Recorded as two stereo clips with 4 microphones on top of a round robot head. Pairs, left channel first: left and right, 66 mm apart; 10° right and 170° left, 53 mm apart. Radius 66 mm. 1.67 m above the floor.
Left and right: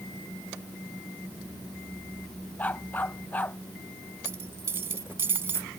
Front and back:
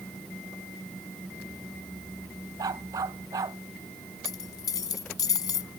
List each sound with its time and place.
2.6 s a dog barking: 155° left
4.2 s a dropped coin: 25° right